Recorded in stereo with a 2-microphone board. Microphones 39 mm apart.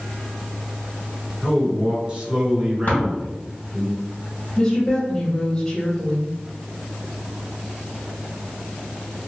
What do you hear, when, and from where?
1.4 s a man speaking: 30° right (ahead or behind), 1.9 m
2.9 s tapping: 55° left (ahead or behind), 2.0 m
4.6 s a woman speaking: 20° left (ahead or behind), 1.0 m